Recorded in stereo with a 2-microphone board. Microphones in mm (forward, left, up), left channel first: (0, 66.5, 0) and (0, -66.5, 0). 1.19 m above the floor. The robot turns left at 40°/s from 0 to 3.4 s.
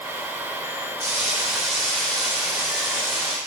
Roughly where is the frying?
Behind right.